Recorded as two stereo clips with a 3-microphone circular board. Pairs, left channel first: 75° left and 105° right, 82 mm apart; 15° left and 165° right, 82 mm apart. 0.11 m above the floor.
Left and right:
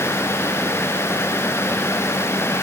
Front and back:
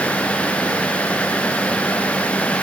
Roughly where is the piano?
No piano in this recording.